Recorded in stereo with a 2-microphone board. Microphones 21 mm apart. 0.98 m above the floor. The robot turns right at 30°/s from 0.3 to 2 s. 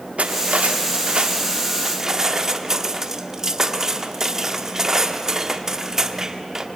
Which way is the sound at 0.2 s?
70° right.